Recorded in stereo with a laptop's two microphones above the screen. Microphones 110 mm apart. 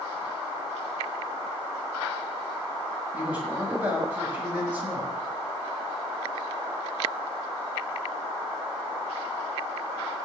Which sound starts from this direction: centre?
A man speaking, at 3.1 s.